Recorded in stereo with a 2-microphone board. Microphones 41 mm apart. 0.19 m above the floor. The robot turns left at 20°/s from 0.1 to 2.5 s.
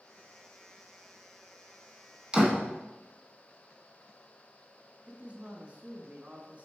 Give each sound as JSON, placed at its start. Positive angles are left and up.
{"t": 2.3, "sound": "a door slam", "side_deg": -25, "distance_m": 1.4}
{"t": 5.1, "sound": "a man speaking", "side_deg": -35, "distance_m": 1.4}